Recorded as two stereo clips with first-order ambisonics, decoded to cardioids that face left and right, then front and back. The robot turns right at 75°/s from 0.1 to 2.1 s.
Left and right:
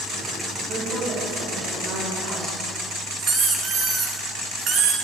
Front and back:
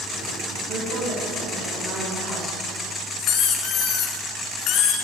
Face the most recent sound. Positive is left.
turn(degrees=-40)